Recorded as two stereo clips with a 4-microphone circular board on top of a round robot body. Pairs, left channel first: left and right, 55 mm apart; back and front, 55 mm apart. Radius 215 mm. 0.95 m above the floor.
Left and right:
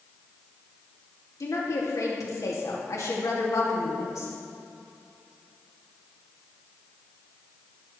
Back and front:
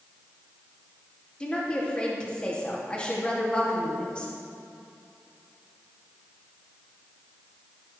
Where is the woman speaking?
110° left, 3 m.